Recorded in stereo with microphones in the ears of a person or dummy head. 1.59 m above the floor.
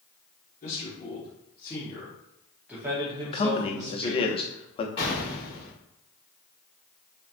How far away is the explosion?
About 2.0 m.